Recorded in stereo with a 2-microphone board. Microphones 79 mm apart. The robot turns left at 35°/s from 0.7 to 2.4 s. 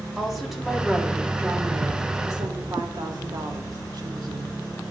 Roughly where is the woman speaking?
Ahead.